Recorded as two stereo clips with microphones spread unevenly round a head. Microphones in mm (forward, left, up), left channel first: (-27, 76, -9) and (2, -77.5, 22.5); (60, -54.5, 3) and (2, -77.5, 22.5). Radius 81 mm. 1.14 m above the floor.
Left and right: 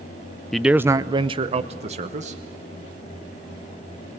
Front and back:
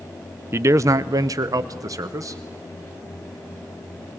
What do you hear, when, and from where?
0.5 s a man speaking: 160° left, 0.5 m; by 2.4 s 125° right, 1.3 m